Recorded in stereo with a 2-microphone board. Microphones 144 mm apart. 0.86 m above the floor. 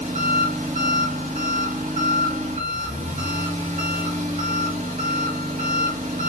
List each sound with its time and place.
0.0 s an engine running: 60° right (ahead or behind), 1.1 m